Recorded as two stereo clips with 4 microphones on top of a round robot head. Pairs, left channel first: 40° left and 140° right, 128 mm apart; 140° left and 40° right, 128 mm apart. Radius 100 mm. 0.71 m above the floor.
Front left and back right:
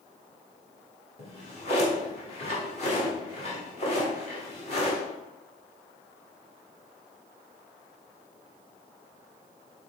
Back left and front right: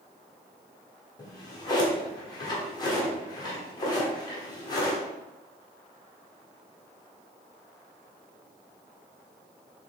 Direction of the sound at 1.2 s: 80° left.